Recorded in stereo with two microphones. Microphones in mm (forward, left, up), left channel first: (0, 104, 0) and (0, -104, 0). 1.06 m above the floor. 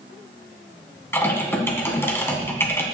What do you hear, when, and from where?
1.1 s typing on a keyboard: 10° left (ahead or behind), 1.8 m